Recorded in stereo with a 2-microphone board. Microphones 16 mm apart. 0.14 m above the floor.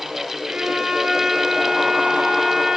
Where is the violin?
65° right (ahead or behind), 8.5 m.